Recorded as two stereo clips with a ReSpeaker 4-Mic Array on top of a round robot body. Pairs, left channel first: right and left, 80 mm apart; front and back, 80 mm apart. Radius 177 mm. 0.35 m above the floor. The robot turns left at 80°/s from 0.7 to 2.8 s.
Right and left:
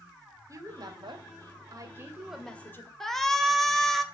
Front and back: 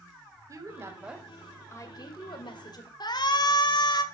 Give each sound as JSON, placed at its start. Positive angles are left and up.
{"t": 0.5, "sound": "a woman speaking", "azimuth_deg": 135, "distance_m": 3.0}
{"t": 3.0, "sound": "a shout", "azimuth_deg": -5, "distance_m": 2.5}